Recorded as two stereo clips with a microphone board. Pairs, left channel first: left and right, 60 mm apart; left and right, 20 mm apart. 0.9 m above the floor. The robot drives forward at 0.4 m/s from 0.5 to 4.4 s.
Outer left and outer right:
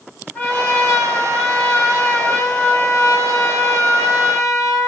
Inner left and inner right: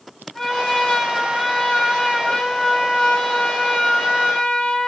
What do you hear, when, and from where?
0.3 s a trumpet: 25° left (ahead or behind), 2 m; by 4.9 s 65° left (ahead or behind), 1.1 m